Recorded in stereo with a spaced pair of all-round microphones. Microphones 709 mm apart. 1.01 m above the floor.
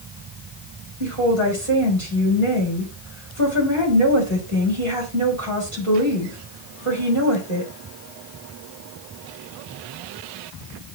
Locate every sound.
1.0 s a woman speaking: 45° right (ahead or behind), 5 m